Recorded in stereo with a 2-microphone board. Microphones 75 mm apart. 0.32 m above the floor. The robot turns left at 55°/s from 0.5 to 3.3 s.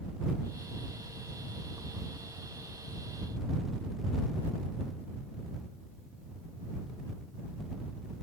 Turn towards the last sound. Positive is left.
No sound to turn to.